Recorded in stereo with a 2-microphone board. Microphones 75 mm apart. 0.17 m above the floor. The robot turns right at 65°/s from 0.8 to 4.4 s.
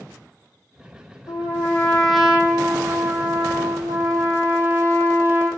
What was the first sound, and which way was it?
A trumpet, 125° left.